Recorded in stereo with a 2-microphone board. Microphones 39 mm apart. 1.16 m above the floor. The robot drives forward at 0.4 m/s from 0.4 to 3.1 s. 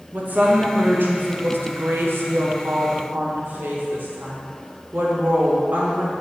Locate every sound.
0.1 s a woman speaking: 45° right (ahead or behind), 1.0 m; by 6.1 s 55° right (ahead or behind), 0.8 m